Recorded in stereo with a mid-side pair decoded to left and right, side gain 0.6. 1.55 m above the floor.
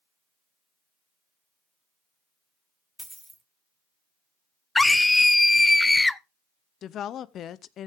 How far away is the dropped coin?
About 3.5 m.